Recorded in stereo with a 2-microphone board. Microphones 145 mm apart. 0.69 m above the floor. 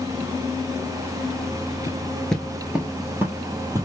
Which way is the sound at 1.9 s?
20° left (ahead or behind).